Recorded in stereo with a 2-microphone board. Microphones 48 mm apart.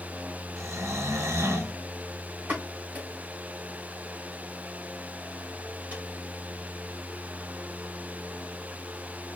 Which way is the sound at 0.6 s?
85° right.